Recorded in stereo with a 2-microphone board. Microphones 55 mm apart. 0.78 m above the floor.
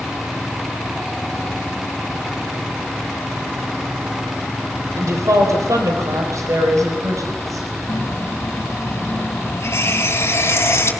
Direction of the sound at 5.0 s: 70° right (ahead or behind).